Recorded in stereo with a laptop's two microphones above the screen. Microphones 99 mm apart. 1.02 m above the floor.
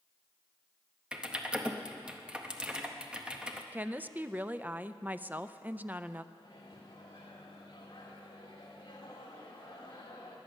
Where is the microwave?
45° left (ahead or behind), 2 m.